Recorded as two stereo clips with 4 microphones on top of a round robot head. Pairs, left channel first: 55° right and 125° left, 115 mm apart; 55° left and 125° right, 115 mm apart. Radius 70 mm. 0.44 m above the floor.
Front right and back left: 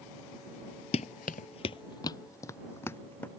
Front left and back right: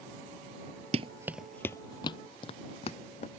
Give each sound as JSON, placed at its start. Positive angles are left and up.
{"t": 0.9, "sound": "running footsteps", "azimuth_deg": -90}